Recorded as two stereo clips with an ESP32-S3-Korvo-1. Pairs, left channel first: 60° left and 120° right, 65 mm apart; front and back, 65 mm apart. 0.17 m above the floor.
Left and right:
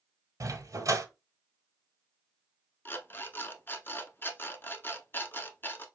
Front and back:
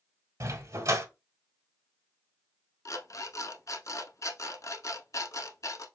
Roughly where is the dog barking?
Behind right.